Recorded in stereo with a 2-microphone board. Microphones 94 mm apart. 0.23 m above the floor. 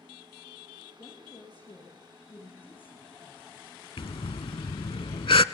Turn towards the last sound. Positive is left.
turn(degrees=70)  # may be behind; listen again after turning